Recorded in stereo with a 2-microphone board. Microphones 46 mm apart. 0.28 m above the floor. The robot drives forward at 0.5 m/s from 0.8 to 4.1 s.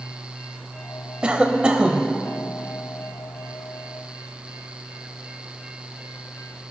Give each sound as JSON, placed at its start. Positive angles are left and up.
{"t": 1.2, "sound": "a cough", "side_deg": -20, "distance_m": 1.0}